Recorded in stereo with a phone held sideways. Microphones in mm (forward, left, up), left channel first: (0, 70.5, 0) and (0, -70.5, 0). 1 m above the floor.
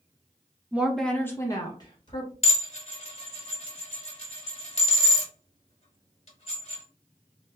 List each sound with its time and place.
0.7 s a woman speaking: 10° right (ahead or behind), 0.5 m; by 2.3 s 35° left (ahead or behind), 1.1 m
2.4 s dishes clattering: 50° left (ahead or behind), 1.0 m